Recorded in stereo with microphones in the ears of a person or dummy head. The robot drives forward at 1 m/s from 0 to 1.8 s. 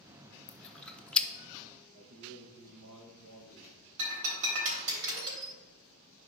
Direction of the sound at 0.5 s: Centre (ahead or behind).